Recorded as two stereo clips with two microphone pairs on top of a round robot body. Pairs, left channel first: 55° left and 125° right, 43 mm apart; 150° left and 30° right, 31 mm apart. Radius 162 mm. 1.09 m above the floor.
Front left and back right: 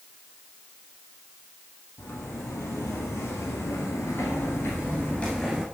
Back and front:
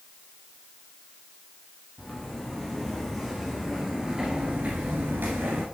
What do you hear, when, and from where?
2.0 s footsteps: 70° left, 3 m; by 5.7 s 40° right, 1.3 m